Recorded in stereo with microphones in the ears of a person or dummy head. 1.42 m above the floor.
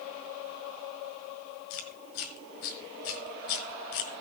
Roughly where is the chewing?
Left.